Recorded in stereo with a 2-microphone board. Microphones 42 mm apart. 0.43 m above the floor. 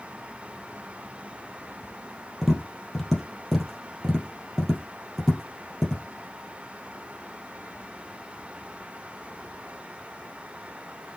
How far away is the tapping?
About 3 m.